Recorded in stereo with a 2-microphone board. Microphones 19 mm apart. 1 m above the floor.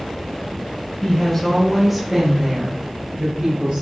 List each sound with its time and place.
1.0 s a woman speaking: 30° left (ahead or behind), 1.2 m; by 3.8 s 60° right (ahead or behind), 1.6 m